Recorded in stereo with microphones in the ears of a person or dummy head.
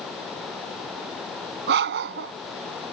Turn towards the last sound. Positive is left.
turn(degrees=-65)  # may be behind; listen again after turning